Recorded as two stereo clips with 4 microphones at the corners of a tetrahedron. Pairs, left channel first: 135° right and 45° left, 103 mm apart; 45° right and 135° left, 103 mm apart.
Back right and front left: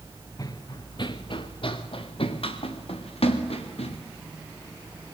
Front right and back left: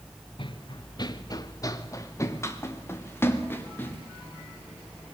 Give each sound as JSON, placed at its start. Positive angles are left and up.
{"t": 0.4, "sound": "running footsteps", "azimuth_deg": -80, "distance_m": 1.3}